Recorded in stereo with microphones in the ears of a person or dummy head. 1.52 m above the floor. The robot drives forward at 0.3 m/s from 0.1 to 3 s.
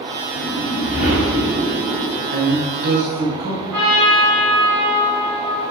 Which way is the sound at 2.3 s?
60° right (ahead or behind).